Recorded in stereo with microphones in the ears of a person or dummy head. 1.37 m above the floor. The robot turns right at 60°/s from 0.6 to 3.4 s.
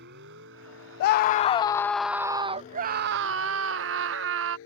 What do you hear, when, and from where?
0.0 s a vehicle: 65° right (ahead or behind); by 4.7 s 75° left (ahead or behind)
1.0 s a scream: 120° left; by 4.6 s 95° right